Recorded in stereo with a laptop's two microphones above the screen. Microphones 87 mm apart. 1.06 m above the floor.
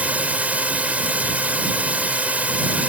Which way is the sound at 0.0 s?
15° right (ahead or behind).